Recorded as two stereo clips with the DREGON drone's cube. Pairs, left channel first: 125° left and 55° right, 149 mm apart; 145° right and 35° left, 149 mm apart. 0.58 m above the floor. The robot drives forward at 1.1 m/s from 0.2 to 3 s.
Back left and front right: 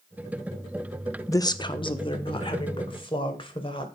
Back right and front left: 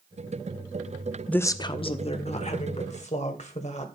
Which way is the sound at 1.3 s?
145° left.